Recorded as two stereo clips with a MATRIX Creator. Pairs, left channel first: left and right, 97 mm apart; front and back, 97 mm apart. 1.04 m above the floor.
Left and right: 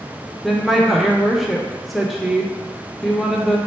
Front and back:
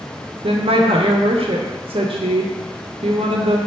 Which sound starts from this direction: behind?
A woman speaking, at 0.4 s.